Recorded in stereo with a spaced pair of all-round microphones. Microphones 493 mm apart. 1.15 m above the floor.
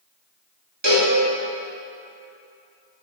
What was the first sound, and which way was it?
A cowbell, 55° right (ahead or behind).